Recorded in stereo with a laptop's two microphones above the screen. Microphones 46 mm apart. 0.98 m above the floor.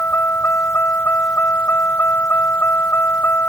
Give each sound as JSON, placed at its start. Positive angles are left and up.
{"t": 0.0, "sound": "a vehicle", "side_deg": 50}